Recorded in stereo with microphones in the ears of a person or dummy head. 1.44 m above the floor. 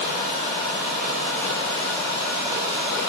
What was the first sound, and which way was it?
Only background noise.